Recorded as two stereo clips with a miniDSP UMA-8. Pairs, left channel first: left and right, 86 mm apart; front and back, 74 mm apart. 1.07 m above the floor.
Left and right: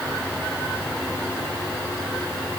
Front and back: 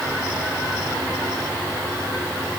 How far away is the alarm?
No alarm in this recording.